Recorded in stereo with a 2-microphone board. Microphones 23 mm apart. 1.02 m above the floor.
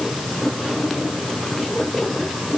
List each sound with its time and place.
Only background noise.